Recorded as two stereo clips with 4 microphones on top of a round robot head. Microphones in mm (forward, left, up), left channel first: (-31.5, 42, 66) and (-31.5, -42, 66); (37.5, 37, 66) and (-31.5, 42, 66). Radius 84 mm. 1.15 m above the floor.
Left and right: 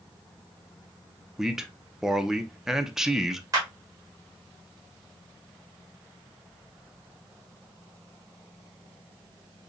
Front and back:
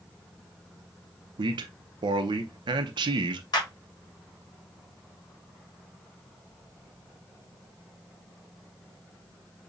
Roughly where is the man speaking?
Behind.